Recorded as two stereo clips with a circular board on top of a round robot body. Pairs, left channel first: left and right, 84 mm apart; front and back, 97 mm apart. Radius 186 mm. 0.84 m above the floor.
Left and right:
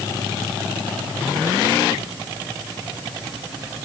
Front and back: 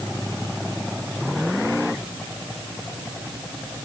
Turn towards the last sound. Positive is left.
No sound to turn to.